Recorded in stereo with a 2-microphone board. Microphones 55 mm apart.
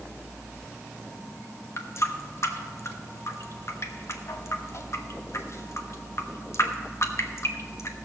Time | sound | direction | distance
1.8 | a running tap | 55° left (ahead or behind) | 1.2 m